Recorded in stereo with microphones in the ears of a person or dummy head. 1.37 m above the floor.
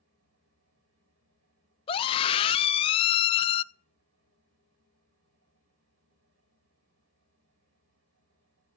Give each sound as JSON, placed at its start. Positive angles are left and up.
{"t": 0.0, "sound": "a fan", "side_deg": -70, "distance_m": 9.5}
{"t": 1.9, "sound": "a scream", "side_deg": 25, "distance_m": 1.0}